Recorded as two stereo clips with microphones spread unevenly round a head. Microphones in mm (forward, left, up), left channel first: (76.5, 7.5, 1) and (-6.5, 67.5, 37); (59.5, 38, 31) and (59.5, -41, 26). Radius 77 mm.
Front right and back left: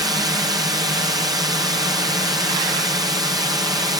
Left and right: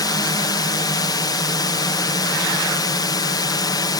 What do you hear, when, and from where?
0.0 s a drone: 85° left